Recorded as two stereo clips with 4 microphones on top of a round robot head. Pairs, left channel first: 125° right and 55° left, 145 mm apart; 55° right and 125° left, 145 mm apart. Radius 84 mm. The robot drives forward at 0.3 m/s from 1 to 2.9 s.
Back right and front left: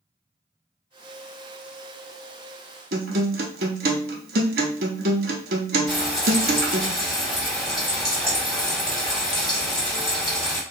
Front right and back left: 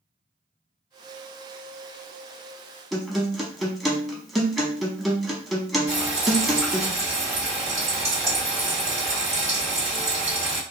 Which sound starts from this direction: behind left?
Frying, at 5.9 s.